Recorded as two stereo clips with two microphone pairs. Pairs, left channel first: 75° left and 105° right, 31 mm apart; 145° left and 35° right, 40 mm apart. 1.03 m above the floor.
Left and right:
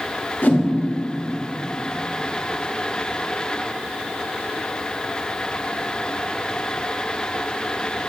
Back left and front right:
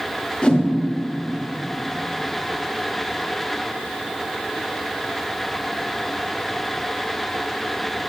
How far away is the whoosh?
About 1.3 m.